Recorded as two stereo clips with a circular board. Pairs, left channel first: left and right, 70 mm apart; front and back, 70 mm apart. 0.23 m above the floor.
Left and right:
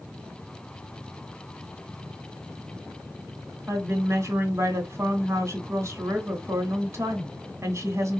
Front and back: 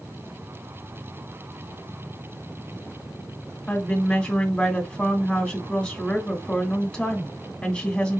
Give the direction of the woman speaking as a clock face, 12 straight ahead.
2 o'clock.